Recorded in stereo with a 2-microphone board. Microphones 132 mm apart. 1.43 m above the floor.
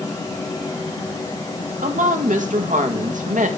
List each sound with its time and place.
1.8 s a woman speaking: 75° right (ahead or behind), 1.4 m